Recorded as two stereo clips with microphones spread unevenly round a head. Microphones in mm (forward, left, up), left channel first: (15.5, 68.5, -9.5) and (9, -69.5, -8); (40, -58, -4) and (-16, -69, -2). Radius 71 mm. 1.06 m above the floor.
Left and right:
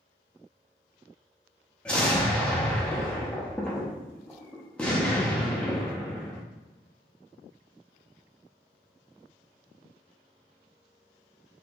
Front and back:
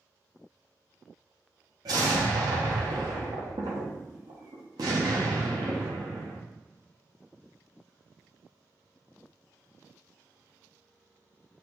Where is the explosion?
170° left, 0.8 m.